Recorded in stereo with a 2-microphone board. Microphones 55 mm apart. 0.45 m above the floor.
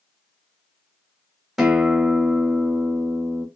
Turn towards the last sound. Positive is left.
turn(degrees=-5)  # may be behind; listen again after turning